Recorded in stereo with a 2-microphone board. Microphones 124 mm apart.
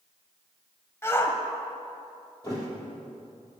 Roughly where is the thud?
Left.